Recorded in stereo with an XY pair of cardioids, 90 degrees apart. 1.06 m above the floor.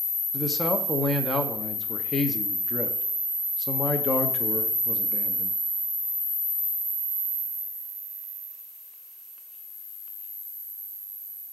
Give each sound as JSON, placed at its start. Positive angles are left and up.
{"t": 0.3, "sound": "a man speaking", "azimuth_deg": 35, "distance_m": 0.7}